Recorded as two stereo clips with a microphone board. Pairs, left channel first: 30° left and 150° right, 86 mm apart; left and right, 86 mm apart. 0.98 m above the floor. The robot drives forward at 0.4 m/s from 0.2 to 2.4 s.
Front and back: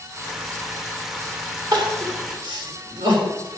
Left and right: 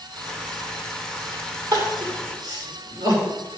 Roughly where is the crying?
Behind right.